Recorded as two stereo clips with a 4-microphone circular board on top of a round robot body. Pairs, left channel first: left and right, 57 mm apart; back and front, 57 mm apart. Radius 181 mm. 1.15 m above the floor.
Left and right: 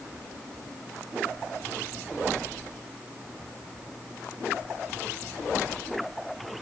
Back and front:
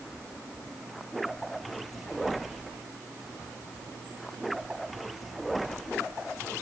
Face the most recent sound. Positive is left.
No sound to turn to.